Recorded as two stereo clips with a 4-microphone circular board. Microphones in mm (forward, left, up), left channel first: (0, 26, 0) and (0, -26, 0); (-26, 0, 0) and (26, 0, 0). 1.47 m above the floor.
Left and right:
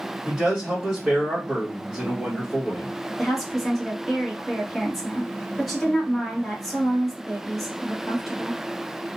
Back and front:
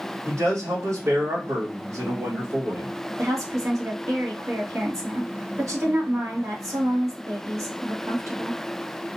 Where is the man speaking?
15° right, 2 m.